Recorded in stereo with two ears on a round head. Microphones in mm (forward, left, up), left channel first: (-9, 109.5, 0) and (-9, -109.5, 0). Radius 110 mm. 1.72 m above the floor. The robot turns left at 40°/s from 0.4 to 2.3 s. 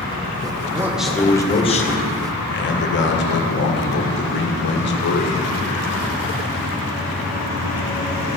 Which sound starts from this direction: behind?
A man speaking, at 0.8 s.